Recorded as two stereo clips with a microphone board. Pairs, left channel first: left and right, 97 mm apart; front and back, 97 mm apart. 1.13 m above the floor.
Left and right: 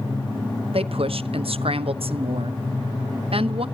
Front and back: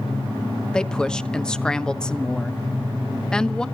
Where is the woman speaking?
80° right, 1.0 m.